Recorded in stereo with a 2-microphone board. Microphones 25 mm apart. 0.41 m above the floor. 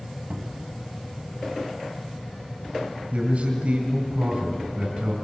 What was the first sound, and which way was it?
A cupboard door, 65° right (ahead or behind).